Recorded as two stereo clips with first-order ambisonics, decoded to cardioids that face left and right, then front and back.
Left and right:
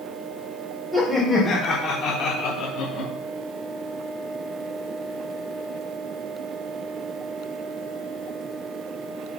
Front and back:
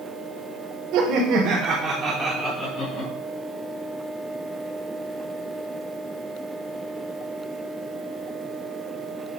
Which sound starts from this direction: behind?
Laughter, at 0.9 s.